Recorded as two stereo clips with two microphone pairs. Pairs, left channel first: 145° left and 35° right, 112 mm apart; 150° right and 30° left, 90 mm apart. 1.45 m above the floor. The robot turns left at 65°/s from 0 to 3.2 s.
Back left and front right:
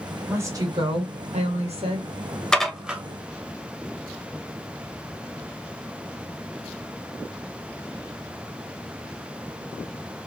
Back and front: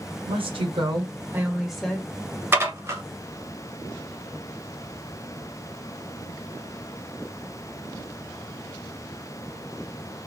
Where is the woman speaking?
35° left, 1.2 m; by 2.1 s 80° right, 1.2 m.